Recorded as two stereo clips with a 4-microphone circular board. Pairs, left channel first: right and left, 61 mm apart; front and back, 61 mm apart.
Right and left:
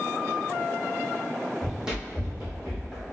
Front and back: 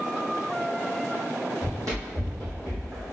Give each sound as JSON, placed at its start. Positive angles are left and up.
{"t": 1.6, "sound": "running footsteps", "azimuth_deg": 160, "distance_m": 1.8}